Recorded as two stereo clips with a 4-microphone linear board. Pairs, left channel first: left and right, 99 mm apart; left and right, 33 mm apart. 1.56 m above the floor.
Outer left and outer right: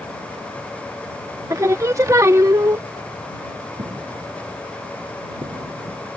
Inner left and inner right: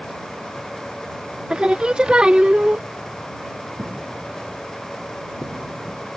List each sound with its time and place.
1.5 s singing: 35° right (ahead or behind)
3.8 s footsteps: 70° right (ahead or behind)